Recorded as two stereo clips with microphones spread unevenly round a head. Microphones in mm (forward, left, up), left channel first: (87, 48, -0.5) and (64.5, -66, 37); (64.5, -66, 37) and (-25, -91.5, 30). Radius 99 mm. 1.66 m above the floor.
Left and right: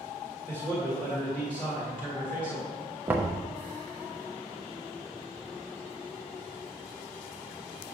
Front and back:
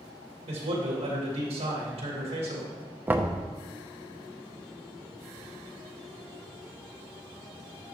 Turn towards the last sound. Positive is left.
turn(degrees=-100)